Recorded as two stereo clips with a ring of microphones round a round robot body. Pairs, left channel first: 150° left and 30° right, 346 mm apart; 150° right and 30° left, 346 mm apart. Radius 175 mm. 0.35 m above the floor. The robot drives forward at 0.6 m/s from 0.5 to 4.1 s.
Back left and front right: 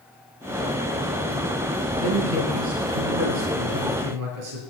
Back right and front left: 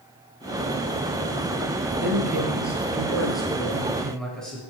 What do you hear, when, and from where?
2.0 s a man speaking: 55° right, 9 m; by 4.6 s 60° right, 8.5 m